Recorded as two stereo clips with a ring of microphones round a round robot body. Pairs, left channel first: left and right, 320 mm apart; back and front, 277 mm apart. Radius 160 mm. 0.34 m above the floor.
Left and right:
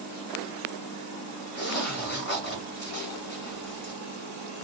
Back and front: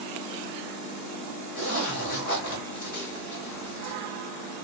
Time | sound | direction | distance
1.6 | a zipper | 150° left | 1.6 m